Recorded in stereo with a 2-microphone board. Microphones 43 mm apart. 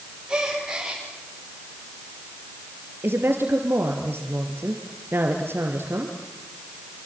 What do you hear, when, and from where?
0.3 s a gasp: 20° right (ahead or behind), 9 m
3.0 s a woman speaking: 65° right (ahead or behind), 3 m